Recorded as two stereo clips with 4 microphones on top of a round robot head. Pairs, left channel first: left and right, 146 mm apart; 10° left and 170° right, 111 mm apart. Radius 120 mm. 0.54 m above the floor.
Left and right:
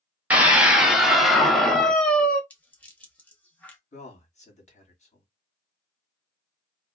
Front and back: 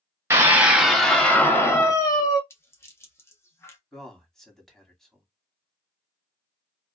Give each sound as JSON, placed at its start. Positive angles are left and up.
{"t": 0.3, "sound": "a scream", "azimuth_deg": -155, "distance_m": 1.0}
{"t": 2.5, "sound": "a rattle", "azimuth_deg": 25, "distance_m": 1.2}
{"t": 3.9, "sound": "a man speaking", "azimuth_deg": 95, "distance_m": 1.7}